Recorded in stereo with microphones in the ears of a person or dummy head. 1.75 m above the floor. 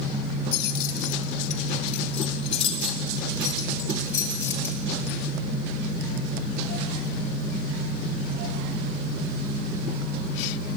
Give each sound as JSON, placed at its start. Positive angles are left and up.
{"t": 0.5, "sound": "keys jangling", "side_deg": 60, "distance_m": 2.5}